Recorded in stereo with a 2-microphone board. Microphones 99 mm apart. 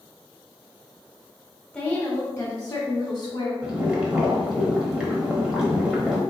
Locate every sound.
1.7 s a woman speaking: 10° left (ahead or behind), 1.0 m; by 3.5 s 50° left (ahead or behind), 1.5 m
3.6 s boiling: 10° right (ahead or behind), 1.0 m